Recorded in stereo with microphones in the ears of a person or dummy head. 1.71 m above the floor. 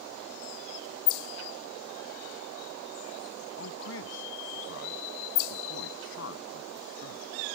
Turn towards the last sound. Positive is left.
turn(degrees=65)  # may be behind; listen again after turning